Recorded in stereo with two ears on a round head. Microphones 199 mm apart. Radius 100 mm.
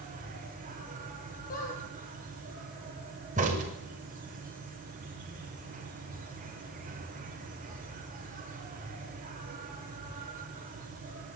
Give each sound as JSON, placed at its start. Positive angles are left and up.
{"t": 0.0, "sound": "an insect", "side_deg": -40, "distance_m": 5.5}
{"t": 1.5, "sound": "a squeak", "side_deg": 40, "distance_m": 7.0}
{"t": 3.4, "sound": "a crack", "side_deg": -35, "distance_m": 6.5}